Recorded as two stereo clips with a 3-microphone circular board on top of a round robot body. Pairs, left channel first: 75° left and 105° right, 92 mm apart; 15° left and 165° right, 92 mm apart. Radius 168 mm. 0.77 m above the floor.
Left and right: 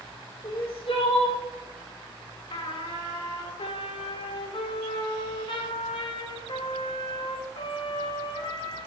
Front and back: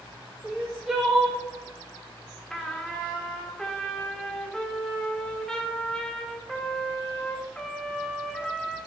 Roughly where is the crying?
Behind left.